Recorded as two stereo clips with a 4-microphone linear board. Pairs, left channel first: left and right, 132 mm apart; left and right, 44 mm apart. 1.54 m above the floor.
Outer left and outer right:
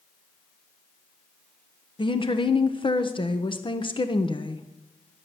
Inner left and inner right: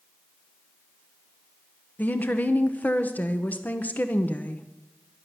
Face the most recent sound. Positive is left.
turn(degrees=40)  # may be behind; listen again after turning